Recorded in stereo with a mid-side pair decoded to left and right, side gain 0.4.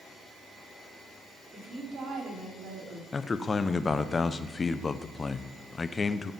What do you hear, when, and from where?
1.5 s a woman speaking: 55° right, 4.5 m; by 3.0 s 70° right, 4 m
3.1 s a man speaking: 35° left, 0.8 m